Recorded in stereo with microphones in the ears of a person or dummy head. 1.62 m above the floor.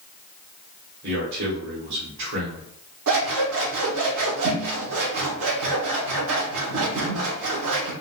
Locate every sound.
1.0 s a man speaking: 60° right (ahead or behind), 1.1 m
3.1 s scissors: 70° right (ahead or behind), 0.9 m